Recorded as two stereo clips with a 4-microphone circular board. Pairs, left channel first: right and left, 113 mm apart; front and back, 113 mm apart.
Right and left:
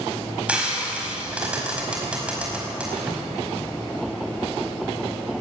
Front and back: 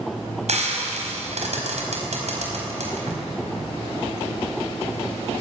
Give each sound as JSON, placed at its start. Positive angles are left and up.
{"t": 0.5, "sound": "frying", "azimuth_deg": 170, "distance_m": 5.0}